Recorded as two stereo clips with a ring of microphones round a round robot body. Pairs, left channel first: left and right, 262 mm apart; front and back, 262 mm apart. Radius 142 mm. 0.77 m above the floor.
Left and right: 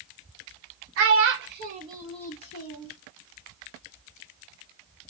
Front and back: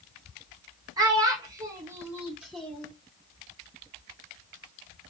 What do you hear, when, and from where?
1.0 s a child speaking: 105° right, 0.9 m; by 2.9 s 85° left, 0.7 m